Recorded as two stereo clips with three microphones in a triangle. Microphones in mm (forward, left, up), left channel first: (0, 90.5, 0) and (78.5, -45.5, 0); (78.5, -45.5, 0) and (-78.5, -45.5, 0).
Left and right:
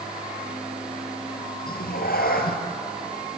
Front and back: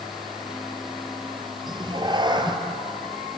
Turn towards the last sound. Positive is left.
turn(degrees=120)